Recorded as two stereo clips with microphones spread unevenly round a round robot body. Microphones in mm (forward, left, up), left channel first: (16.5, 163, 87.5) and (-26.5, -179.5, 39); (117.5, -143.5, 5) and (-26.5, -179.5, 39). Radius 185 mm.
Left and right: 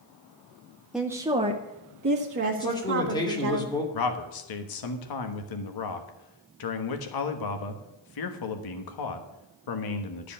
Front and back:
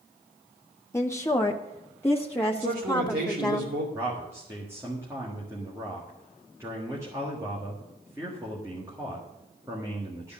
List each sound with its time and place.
0.9 s a woman speaking: 20° right, 0.9 m; by 3.6 s 60° right, 2.0 m
2.6 s a man speaking: 165° left, 3 m
3.9 s a man speaking: 110° left, 1.4 m